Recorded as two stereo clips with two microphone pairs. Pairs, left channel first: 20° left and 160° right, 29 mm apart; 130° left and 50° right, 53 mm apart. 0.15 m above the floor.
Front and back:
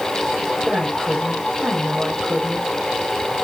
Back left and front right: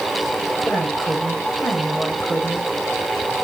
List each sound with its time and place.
0.7 s a woman speaking: 170° left, 6 m